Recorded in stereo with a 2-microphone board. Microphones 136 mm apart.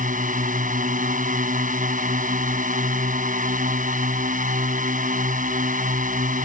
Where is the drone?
90° right.